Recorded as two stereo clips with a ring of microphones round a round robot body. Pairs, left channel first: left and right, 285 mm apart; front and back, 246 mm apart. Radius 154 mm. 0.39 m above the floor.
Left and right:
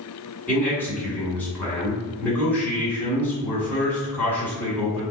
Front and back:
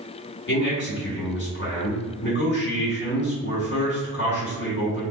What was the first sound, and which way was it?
A man speaking, 10° left.